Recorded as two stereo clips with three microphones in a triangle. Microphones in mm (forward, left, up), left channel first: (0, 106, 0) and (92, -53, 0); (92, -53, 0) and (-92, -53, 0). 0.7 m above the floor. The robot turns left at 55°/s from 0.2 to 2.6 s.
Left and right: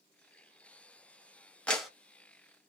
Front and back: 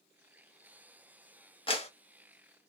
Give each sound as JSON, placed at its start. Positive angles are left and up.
{"t": 1.7, "sound": "a clap", "azimuth_deg": 40, "distance_m": 0.6}